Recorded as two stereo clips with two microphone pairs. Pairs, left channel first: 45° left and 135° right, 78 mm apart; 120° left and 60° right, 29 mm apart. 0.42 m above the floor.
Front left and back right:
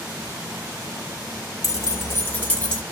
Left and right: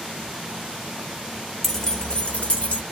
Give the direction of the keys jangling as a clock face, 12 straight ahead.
10 o'clock.